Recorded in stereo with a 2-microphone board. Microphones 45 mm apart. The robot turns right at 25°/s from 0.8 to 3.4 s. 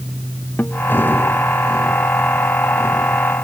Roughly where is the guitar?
Left.